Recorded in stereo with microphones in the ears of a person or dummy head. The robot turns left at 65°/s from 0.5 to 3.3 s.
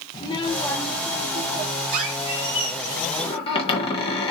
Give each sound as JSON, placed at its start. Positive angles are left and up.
{"t": 0.1, "sound": "a child speaking", "azimuth_deg": 25, "distance_m": 1.0}
{"t": 1.9, "sound": "a squeak", "azimuth_deg": -125, "distance_m": 1.1}